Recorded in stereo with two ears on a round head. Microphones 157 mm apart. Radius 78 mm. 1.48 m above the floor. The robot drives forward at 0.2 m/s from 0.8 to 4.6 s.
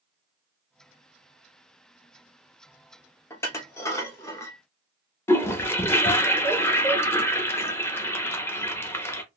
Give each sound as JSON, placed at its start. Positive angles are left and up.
{"t": 3.3, "sound": "dishes clattering", "side_deg": 15, "distance_m": 0.7}
{"t": 5.3, "sound": "a toilet flushing", "side_deg": 15, "distance_m": 0.7}